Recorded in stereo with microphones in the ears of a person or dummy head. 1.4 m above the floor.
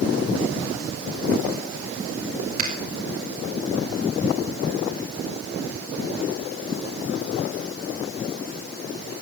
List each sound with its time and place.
2.6 s a finger snap: 45° right (ahead or behind), 2.5 m